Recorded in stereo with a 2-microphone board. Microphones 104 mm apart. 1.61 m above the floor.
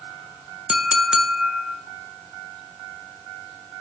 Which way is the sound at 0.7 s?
5° right (ahead or behind).